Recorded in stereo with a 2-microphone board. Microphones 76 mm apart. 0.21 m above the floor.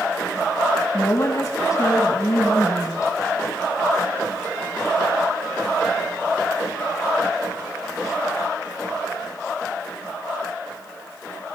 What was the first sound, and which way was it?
A woman speaking, 45° left (ahead or behind).